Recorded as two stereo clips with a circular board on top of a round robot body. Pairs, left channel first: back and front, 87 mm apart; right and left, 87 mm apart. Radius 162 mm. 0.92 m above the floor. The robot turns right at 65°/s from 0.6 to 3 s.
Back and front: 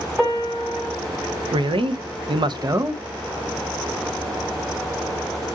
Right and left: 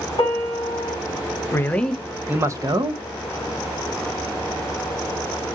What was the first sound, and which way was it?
A piano, 90° right.